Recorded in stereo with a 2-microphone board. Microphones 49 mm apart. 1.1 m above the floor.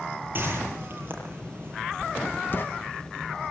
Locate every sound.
0.3 s a whoosh: 40° right (ahead or behind), 8.5 m
2.0 s writing: 45° left (ahead or behind), 1.0 m